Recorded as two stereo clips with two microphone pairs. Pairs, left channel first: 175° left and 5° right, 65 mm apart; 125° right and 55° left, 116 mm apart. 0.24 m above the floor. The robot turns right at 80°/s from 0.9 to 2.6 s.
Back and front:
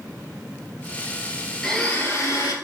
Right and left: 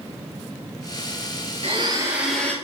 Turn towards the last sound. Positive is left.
turn(degrees=165)